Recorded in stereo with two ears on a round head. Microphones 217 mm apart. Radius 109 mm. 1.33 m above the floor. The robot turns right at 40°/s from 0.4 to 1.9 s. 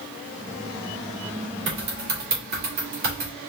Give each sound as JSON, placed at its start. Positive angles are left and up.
{"t": 1.7, "sound": "typing on a keyboard", "side_deg": -50, "distance_m": 2.5}